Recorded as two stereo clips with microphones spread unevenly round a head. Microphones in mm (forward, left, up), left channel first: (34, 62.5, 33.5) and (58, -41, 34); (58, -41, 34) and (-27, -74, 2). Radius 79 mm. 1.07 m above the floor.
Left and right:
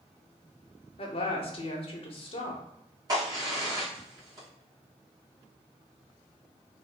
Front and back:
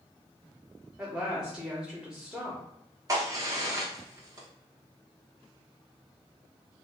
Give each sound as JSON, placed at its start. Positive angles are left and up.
{"t": 1.0, "sound": "a woman speaking", "azimuth_deg": 130, "distance_m": 0.9}
{"t": 3.1, "sound": "a crack", "azimuth_deg": -130, "distance_m": 1.3}